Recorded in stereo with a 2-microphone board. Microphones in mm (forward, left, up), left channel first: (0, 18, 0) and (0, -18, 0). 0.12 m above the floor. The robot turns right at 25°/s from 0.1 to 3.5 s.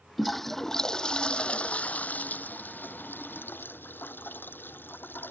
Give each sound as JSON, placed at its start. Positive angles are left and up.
{"t": 0.2, "sound": "a toilet flushing", "azimuth_deg": 0}